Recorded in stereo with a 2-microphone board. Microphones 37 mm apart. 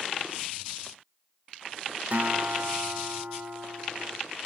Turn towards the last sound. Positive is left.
turn(degrees=-55)  # may be behind; listen again after turning